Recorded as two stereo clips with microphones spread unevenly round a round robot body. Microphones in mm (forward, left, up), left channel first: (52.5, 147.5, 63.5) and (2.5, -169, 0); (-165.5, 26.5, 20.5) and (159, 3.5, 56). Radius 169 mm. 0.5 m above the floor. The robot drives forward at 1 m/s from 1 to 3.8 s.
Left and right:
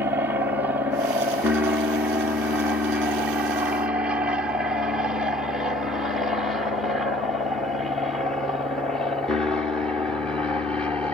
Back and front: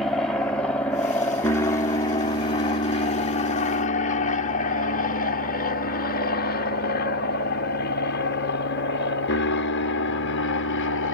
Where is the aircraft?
120° right; by 11.2 s straight behind.